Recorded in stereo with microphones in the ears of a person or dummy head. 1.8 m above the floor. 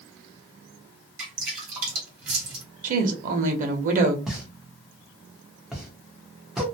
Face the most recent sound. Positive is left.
turn(degrees=-5)  # may be behind; listen again after turning